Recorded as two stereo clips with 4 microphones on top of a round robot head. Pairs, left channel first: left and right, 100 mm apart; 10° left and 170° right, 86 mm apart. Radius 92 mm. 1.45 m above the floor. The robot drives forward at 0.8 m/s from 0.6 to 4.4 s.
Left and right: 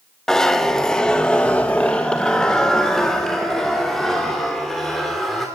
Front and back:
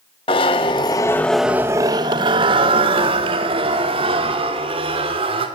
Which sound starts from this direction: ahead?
A zipper, at 0.3 s.